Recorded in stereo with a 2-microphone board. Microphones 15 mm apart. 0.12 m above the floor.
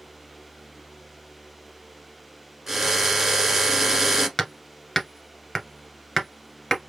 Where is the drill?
25° right (ahead or behind), 1.3 m.